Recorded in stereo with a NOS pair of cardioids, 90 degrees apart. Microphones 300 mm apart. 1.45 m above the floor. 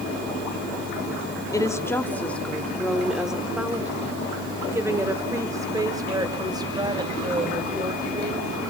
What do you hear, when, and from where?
1.5 s a woman speaking: 10° left, 2.5 m; by 8.6 s 15° right, 7 m